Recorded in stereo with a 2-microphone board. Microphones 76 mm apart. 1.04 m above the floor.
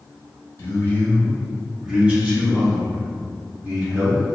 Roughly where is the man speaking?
Left.